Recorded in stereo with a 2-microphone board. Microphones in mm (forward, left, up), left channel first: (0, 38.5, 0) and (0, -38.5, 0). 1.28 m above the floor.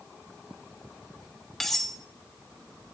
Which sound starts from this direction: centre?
Cutlery clinking, at 1.6 s.